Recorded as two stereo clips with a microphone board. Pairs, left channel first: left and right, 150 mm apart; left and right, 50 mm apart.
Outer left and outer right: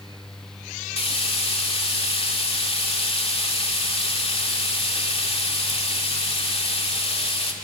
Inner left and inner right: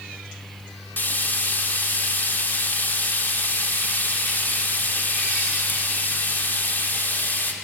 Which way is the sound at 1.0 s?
40° left (ahead or behind).